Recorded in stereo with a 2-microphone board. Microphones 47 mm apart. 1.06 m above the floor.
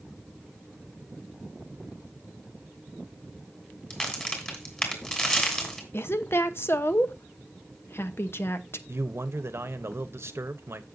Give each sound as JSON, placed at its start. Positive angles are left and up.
{"t": 3.9, "sound": "a crack", "side_deg": 20, "distance_m": 2.5}
{"t": 5.9, "sound": "a woman speaking", "side_deg": 55, "distance_m": 0.9}
{"t": 8.9, "sound": "a man speaking", "side_deg": -60, "distance_m": 1.0}